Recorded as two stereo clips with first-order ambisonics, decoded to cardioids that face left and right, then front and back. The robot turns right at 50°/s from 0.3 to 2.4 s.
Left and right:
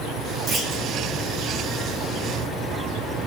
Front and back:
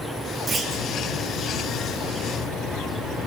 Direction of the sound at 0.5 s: 110° right.